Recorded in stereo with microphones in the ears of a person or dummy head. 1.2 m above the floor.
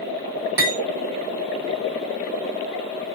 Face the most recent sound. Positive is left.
turn(degrees=-55)  # may be behind; listen again after turning